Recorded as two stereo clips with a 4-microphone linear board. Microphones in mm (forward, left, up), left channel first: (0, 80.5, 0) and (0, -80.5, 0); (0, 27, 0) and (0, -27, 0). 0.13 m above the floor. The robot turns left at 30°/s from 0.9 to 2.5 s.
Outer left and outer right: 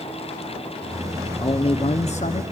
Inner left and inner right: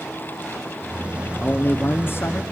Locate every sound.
1.4 s a man speaking: 130° left, 1.7 m; by 2.4 s 100° left, 1.7 m